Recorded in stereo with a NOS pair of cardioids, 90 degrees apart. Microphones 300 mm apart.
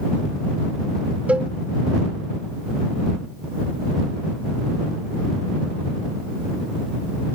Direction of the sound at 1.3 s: 5° right.